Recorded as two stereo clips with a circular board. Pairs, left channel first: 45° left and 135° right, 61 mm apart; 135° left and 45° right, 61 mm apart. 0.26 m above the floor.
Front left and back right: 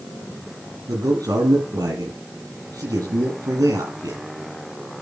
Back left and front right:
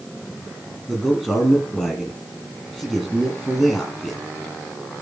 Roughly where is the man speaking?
Behind right.